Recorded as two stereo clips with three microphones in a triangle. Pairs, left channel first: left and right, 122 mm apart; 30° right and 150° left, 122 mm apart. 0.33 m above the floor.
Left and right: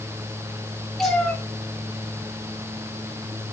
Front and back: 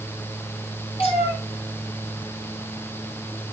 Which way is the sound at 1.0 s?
5° left.